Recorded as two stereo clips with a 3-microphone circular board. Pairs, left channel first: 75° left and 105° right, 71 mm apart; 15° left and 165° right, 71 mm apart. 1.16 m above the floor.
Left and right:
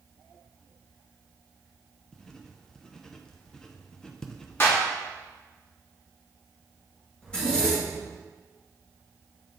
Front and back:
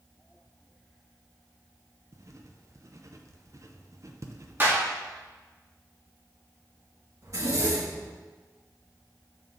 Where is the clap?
130° left, 2.0 m.